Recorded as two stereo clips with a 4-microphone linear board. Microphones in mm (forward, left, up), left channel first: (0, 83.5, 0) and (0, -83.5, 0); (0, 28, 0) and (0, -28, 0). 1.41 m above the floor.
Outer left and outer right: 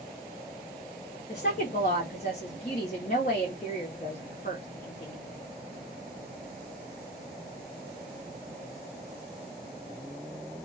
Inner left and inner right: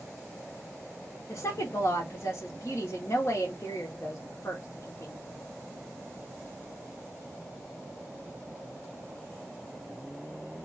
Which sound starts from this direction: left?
A woman speaking, at 1.3 s.